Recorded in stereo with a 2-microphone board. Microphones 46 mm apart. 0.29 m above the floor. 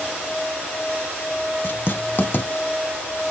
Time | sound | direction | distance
1.6 | writing | 50° left (ahead or behind) | 0.5 m